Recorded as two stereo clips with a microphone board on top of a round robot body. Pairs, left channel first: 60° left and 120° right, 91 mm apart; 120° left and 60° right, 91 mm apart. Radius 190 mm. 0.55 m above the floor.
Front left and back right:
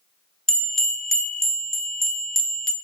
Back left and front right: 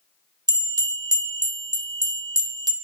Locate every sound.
0.5 s a bell: 25° right, 1.1 m